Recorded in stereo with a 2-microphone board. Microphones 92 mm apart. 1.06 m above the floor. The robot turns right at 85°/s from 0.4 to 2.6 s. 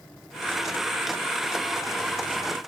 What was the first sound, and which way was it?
Only background noise.